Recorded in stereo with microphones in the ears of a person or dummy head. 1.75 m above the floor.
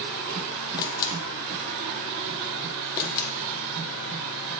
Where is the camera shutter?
20° left (ahead or behind), 0.9 m.